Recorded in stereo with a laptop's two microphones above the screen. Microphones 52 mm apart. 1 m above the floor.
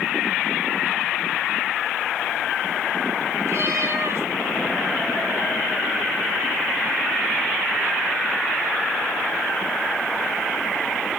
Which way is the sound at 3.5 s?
55° right (ahead or behind).